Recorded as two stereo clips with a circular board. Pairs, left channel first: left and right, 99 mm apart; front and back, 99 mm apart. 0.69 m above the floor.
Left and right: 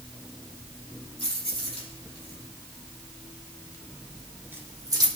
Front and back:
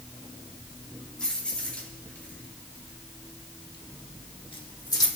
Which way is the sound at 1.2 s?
80° left.